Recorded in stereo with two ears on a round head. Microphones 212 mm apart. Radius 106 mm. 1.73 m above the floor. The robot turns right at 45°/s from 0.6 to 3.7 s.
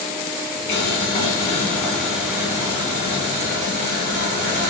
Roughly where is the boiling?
Behind left.